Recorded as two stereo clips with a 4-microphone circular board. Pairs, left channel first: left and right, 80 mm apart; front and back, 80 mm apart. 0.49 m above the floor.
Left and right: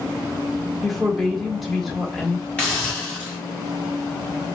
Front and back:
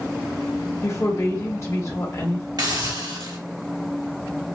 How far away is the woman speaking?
About 1.5 m.